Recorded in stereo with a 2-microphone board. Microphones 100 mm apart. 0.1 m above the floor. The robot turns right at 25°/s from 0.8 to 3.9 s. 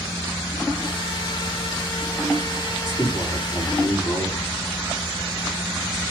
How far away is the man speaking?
About 7.5 m.